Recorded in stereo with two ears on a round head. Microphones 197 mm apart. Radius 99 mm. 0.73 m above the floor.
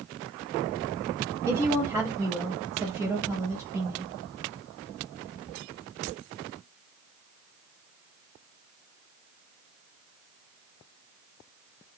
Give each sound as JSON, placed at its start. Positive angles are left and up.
{"t": 1.5, "sound": "a woman speaking", "side_deg": -10, "distance_m": 0.7}